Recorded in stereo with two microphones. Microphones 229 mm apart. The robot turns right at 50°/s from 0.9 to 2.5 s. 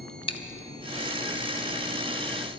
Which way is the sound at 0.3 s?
25° left (ahead or behind).